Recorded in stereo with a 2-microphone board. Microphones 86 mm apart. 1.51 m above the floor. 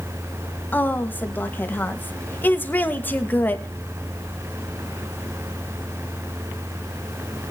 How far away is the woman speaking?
About 1.8 m.